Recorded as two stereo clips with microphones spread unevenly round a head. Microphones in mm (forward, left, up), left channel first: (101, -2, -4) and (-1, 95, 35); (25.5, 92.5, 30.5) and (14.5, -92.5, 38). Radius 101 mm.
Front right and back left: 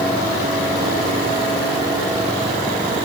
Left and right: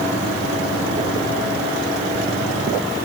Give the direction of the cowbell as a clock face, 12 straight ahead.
No cowbell in this recording.